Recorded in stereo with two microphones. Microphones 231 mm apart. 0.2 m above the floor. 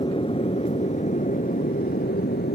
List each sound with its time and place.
0.0 s an aircraft: 25° left (ahead or behind); by 2.5 s 45° left (ahead or behind)